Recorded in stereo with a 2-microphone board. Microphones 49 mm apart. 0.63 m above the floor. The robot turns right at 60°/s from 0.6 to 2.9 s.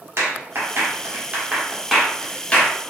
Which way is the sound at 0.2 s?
55° right (ahead or behind).